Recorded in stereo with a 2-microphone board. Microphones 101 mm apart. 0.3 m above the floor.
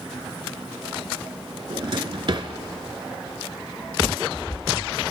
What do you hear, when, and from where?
1.7 s a drawer: 55° right (ahead or behind), 0.9 m